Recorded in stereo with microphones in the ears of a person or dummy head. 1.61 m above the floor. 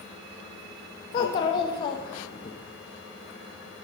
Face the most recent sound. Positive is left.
turn(degrees=30)  # may be behind; listen again after turning